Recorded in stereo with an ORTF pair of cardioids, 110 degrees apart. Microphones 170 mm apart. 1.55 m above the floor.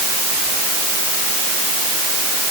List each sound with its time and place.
Only background noise.